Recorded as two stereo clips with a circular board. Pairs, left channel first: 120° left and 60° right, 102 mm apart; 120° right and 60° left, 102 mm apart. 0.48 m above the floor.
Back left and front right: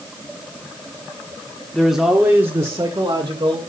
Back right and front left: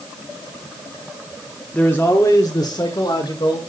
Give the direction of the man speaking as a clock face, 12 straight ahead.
6 o'clock.